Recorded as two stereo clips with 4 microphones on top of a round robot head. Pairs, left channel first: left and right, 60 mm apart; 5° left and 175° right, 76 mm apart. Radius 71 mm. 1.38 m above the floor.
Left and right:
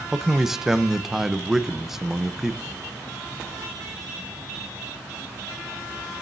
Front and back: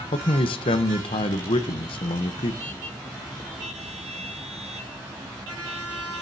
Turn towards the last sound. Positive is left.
turn(degrees=-5)